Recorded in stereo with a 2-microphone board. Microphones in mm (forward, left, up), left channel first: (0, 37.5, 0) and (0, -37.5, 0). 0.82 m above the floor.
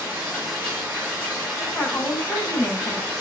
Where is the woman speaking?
20° left (ahead or behind), 7 m.